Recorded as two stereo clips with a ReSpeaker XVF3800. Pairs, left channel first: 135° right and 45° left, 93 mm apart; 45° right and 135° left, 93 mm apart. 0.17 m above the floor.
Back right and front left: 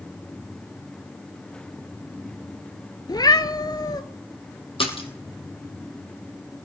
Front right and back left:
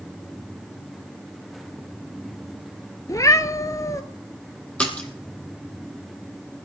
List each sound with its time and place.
3.1 s a cat meowing: 95° right, 0.8 m
4.8 s a splash: 120° right, 2.5 m